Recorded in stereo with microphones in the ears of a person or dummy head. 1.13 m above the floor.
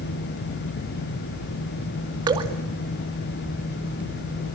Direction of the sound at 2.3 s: 25° right (ahead or behind).